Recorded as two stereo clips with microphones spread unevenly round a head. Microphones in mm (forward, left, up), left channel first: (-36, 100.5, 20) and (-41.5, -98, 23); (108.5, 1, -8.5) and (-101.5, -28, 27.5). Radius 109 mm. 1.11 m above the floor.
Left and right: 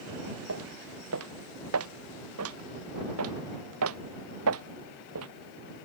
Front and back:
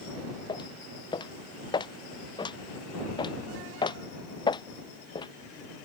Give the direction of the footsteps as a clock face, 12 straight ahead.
2 o'clock.